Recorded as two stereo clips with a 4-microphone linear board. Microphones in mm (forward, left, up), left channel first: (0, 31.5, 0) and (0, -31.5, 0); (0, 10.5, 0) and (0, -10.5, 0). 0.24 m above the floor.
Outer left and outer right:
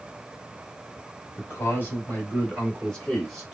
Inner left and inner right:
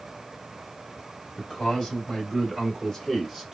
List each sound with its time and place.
1.4 s a man speaking: 40° left (ahead or behind), 1.7 m; by 3.5 s 5° left (ahead or behind), 1.4 m